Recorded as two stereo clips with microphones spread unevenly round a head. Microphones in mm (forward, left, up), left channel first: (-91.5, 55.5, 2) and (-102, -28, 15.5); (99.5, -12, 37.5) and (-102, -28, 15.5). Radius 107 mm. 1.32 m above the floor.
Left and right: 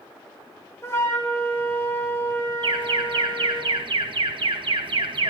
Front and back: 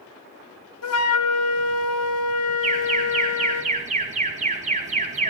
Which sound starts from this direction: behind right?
An alarm, at 2.6 s.